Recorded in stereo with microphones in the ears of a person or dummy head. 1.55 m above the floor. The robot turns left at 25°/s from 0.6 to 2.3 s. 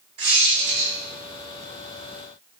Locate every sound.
0.2 s a squeak: 30° right (ahead or behind), 0.6 m; by 0.9 s 25° right (ahead or behind), 0.6 m